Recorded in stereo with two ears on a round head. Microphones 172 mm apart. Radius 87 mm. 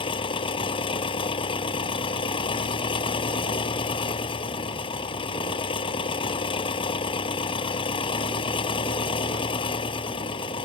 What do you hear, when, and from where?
0.0 s an engine running: 30° left (ahead or behind)